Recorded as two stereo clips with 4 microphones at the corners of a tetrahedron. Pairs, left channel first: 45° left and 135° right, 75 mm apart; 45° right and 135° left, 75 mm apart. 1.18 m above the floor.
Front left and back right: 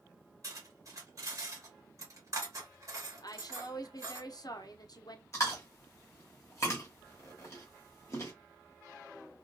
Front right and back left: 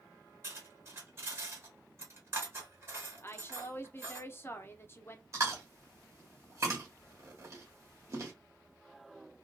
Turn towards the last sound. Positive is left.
turn(degrees=95)